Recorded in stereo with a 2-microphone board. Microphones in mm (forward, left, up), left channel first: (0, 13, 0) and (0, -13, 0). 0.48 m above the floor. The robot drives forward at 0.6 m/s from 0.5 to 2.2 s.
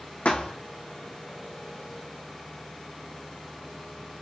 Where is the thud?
60° left (ahead or behind), 1.1 m.